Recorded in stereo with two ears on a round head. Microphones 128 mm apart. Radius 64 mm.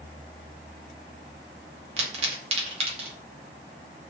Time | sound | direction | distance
2.0 | a pop | 45° right (ahead or behind) | 0.8 m